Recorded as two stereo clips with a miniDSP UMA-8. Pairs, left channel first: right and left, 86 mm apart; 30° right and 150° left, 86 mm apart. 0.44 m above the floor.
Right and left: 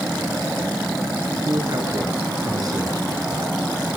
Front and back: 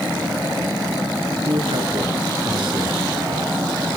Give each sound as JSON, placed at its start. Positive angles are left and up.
{"t": 1.4, "sound": "a man speaking", "azimuth_deg": 135, "distance_m": 6.0}